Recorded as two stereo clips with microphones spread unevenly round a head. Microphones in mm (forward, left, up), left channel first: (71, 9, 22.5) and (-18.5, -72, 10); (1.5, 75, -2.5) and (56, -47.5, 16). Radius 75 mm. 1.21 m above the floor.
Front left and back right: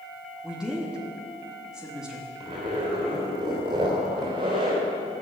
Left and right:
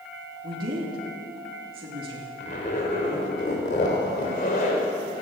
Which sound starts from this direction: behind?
A zipper, at 2.4 s.